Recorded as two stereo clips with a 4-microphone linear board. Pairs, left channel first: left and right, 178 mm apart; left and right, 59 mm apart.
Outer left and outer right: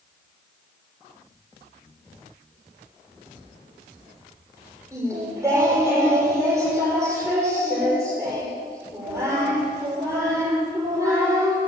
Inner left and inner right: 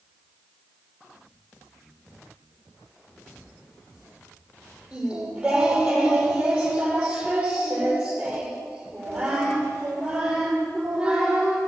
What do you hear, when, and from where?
4.9 s singing: 15° right (ahead or behind), 7 m